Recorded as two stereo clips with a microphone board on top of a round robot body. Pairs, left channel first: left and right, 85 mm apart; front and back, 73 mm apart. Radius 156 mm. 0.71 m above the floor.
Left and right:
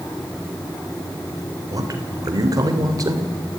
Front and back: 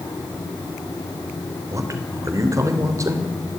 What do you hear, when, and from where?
1.7 s a man speaking: 135° right, 3 m